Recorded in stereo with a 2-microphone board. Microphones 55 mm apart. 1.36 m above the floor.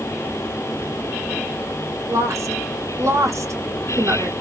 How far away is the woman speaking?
About 1.2 m.